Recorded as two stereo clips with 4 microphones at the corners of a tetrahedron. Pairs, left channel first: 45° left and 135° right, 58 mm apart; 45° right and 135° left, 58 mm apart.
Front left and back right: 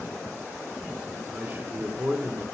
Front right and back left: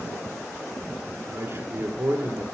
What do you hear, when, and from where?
1.3 s a man speaking: 175° left, 3 m